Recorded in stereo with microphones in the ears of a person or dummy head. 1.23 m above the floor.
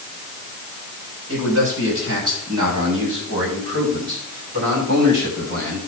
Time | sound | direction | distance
1.3 | a man speaking | 80° right | 7 m